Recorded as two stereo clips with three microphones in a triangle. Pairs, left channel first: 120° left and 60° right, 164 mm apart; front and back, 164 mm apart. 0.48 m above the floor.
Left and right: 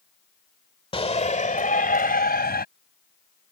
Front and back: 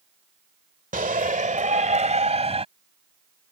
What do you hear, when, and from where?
0.9 s a shout: 170° left; by 2.6 s 130° left